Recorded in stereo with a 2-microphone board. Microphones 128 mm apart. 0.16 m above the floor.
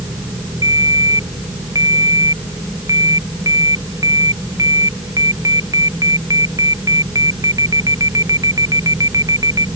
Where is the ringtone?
25° right (ahead or behind).